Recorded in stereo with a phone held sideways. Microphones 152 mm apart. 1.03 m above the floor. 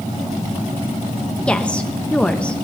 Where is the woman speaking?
5° left (ahead or behind), 1.0 m.